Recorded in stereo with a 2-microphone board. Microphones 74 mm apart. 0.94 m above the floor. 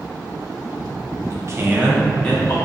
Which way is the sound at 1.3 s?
50° right (ahead or behind).